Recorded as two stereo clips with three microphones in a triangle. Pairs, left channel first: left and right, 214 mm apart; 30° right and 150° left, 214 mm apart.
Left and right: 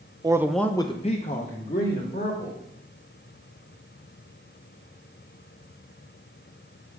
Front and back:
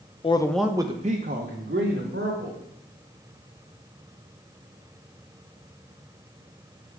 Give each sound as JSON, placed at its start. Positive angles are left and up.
{"t": 0.2, "sound": "a man speaking", "azimuth_deg": -45, "distance_m": 0.5}